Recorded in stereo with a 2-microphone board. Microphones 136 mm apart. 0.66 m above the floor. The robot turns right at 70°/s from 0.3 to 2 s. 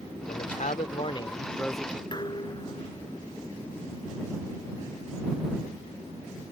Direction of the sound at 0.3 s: 75° left.